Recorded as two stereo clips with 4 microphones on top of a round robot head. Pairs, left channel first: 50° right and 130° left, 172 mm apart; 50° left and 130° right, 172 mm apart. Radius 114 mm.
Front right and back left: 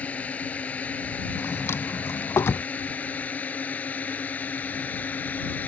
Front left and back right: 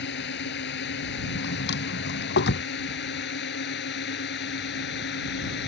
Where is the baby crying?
No baby crying in this recording.